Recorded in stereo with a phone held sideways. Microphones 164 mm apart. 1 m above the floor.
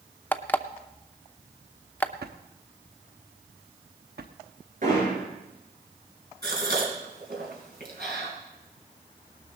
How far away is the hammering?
About 8.5 m.